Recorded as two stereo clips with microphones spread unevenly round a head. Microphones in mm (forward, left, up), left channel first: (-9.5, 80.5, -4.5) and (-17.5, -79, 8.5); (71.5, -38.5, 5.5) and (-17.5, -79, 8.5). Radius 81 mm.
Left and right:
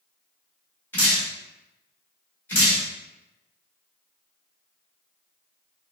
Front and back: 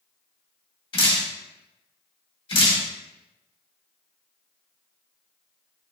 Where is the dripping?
10° left, 1.2 m.